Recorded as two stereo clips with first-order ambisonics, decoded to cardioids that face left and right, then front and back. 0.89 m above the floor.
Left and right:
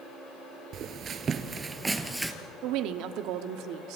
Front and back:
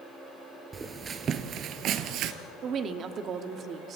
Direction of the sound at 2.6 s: 120° right.